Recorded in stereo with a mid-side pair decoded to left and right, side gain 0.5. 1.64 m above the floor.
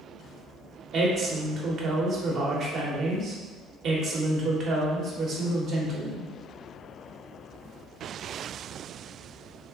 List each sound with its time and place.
0.9 s a woman speaking: 55° right, 1.3 m